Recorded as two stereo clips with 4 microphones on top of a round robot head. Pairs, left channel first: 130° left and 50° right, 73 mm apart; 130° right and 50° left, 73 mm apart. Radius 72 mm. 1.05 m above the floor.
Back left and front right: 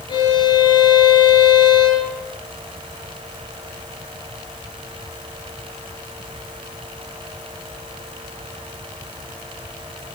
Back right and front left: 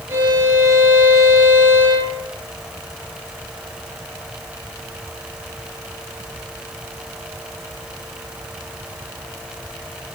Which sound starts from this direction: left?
A violin, at 0.1 s.